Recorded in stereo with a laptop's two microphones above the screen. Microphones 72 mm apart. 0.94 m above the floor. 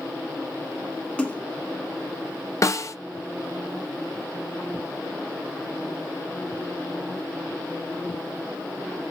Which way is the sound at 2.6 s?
45° left (ahead or behind).